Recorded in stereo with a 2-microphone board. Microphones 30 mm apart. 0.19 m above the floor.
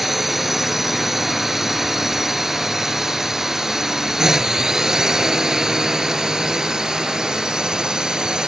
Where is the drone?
5° right (ahead or behind); by 8.5 s 25° right (ahead or behind).